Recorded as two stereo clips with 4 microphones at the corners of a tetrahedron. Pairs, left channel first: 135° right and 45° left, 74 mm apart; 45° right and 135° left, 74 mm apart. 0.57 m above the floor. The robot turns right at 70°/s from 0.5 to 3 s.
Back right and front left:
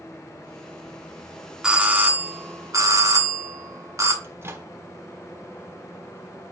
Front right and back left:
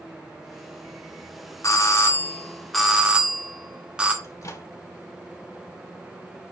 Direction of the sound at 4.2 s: 10° right.